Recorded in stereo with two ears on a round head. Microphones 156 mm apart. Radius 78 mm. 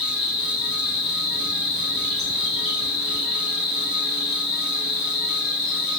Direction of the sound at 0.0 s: Centre (ahead or behind).